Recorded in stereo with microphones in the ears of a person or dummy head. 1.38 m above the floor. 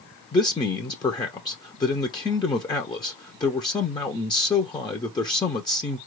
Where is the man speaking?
20° left (ahead or behind), 0.7 m.